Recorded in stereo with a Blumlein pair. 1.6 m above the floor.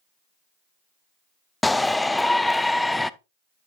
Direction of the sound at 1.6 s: 5° left.